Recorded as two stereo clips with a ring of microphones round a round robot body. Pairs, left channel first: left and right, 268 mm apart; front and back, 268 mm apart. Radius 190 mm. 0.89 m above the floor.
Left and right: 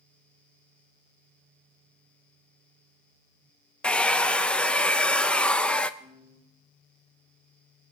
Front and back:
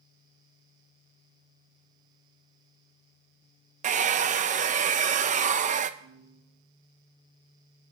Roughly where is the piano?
Behind.